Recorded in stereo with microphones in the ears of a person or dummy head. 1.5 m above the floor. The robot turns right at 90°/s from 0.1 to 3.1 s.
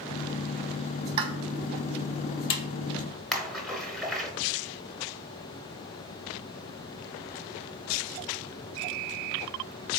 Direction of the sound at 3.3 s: 5° left (ahead or behind).